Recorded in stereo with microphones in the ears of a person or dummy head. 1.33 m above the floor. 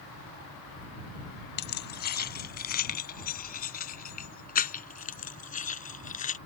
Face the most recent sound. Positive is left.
turn(degrees=40)  # may be behind; listen again after turning